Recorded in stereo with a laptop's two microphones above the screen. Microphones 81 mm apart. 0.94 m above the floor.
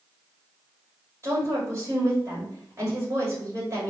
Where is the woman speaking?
35° right (ahead or behind), 2.5 m.